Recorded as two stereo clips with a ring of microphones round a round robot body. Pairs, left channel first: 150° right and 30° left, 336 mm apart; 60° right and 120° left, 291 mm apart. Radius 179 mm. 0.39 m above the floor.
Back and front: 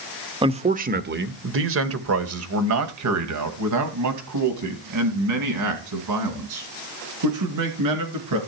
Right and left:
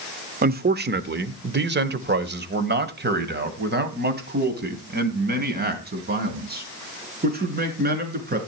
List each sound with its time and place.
0.4 s a man speaking: 95° left, 1.2 m; by 8.4 s 60° left, 6.5 m